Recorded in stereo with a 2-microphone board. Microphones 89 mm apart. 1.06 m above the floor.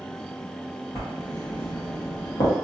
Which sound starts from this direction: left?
Writing, at 0.9 s.